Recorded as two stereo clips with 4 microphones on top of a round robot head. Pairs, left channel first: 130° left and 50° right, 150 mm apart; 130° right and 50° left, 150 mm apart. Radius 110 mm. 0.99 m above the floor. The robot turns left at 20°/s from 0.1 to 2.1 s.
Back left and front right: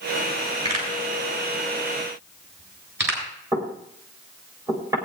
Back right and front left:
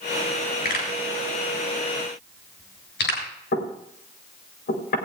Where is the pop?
100° right, 6.5 m; by 3.2 s 125° right, 6.5 m.